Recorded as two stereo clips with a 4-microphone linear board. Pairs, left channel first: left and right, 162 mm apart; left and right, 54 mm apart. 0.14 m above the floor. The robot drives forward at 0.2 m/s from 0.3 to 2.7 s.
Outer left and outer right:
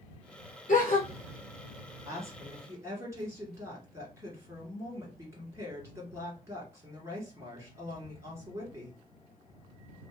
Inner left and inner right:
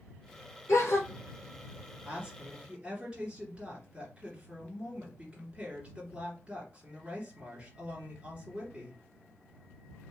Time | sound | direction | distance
0.7 | a gasp | 60° left (ahead or behind) | 1.4 m
2.0 | a woman speaking | 20° right (ahead or behind) | 2 m